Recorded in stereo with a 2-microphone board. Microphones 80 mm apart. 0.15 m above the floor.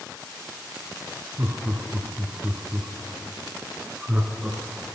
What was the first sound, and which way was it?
Laughter, 30° right (ahead or behind).